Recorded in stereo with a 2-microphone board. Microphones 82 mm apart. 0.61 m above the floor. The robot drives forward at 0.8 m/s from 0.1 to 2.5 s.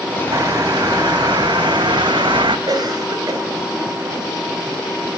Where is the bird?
50° right (ahead or behind), 2.5 m; by 2.6 s 80° right, 2 m.